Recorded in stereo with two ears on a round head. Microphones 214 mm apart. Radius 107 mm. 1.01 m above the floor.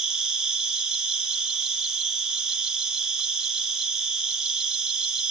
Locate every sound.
0.0 s an insect: 5° right (ahead or behind), 0.9 m